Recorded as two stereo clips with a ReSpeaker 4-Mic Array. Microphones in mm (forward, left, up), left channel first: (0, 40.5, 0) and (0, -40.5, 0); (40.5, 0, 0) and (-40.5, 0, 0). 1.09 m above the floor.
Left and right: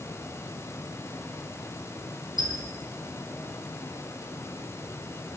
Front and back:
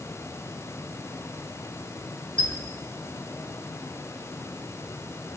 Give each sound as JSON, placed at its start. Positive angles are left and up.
{"t": 2.4, "sound": "a squeak", "azimuth_deg": -75, "distance_m": 5.0}